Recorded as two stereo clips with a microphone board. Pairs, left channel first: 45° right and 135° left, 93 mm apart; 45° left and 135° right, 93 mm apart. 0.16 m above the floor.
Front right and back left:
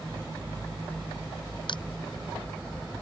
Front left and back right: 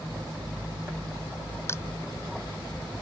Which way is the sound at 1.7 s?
15° right.